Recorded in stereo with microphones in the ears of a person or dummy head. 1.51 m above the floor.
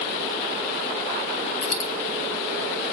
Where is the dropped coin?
20° left (ahead or behind), 3.5 m.